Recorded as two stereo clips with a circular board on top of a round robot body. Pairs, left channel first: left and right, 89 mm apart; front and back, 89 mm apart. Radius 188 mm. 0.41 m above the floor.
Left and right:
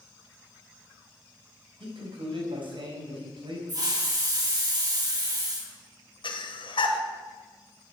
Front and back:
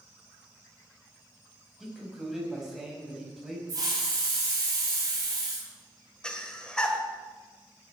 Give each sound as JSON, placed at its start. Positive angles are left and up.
{"t": 1.8, "sound": "a man speaking", "azimuth_deg": -95, "distance_m": 4.0}
{"t": 3.7, "sound": "a hiss", "azimuth_deg": -135, "distance_m": 4.5}
{"t": 6.2, "sound": "breathing", "azimuth_deg": 80, "distance_m": 1.9}